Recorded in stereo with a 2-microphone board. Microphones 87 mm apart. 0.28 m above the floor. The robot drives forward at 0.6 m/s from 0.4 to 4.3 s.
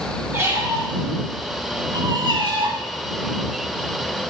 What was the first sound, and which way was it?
A squeak, 30° right (ahead or behind).